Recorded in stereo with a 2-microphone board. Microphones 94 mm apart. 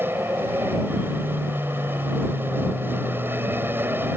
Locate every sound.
0.0 s an aircraft: 20° right (ahead or behind)